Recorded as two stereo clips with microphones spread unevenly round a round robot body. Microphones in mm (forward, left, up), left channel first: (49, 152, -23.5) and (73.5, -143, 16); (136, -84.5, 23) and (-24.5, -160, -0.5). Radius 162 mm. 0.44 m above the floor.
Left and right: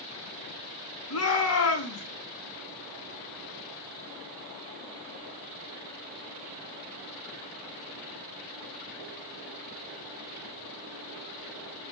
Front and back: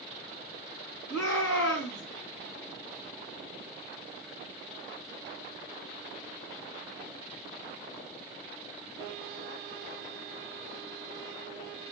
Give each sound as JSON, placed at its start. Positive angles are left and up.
{"t": 1.1, "sound": "a shout", "azimuth_deg": 60, "distance_m": 4.0}